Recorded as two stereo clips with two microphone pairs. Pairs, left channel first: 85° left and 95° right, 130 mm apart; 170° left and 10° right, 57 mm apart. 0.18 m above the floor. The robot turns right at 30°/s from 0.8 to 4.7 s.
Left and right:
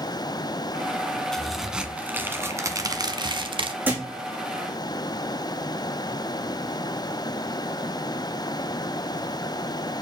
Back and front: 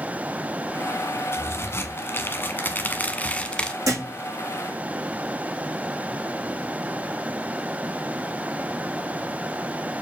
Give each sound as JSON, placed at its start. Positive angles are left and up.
{"t": 1.3, "sound": "a crack", "azimuth_deg": 165, "distance_m": 0.9}
{"t": 3.9, "sound": "a thud", "azimuth_deg": -20, "distance_m": 4.5}